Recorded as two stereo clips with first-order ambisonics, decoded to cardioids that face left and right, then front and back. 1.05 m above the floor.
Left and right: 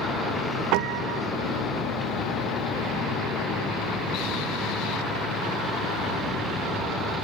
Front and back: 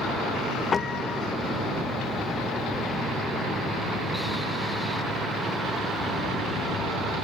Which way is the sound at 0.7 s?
70° right.